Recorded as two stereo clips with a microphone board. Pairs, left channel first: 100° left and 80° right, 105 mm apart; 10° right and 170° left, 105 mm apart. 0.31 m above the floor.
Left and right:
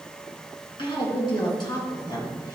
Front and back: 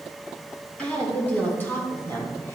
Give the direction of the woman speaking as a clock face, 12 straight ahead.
10 o'clock.